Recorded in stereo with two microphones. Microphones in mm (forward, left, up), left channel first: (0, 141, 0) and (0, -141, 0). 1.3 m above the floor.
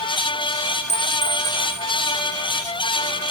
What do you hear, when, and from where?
0.9 s a clink: 25° left (ahead or behind), 1.5 m